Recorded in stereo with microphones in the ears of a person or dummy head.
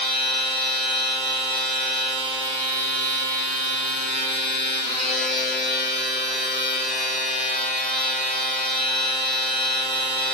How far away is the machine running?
About 1.6 m.